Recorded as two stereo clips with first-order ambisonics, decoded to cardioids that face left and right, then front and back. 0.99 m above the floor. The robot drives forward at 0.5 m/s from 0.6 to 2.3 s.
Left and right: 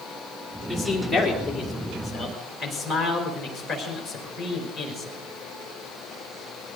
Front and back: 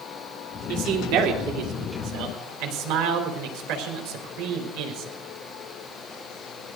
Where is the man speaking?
Straight behind, 3 m.